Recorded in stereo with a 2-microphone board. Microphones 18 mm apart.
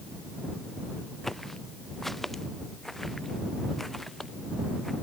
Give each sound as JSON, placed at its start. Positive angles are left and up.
{"t": 1.2, "sound": "footsteps", "side_deg": 5}